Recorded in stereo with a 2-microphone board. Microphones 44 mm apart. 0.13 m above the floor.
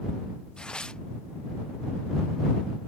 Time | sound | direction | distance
0.6 | tearing paper | 20° left (ahead or behind) | ?